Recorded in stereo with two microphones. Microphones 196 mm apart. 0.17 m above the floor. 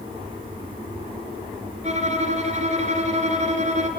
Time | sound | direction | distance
1.8 | a violin | 35° right (ahead or behind) | 2 m